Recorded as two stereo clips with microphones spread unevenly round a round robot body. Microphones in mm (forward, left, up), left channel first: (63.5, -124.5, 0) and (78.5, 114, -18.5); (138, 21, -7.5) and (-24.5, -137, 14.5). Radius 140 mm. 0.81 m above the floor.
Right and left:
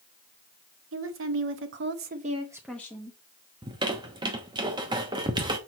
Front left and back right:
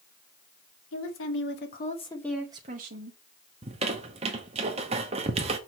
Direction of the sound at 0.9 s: 65° left.